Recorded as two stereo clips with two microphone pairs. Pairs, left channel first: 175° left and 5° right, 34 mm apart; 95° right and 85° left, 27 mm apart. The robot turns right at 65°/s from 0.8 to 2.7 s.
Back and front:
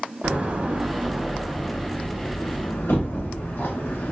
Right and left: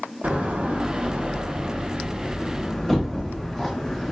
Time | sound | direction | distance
0.2 | a door slam | 50° left | 0.7 m